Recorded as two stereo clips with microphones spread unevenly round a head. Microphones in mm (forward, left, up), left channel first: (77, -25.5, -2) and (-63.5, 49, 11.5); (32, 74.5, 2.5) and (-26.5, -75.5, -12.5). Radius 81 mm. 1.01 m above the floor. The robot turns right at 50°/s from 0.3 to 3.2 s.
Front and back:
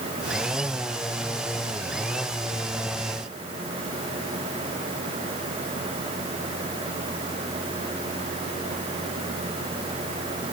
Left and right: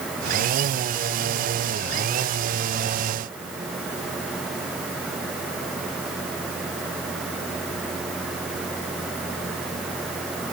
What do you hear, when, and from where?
Only background noise.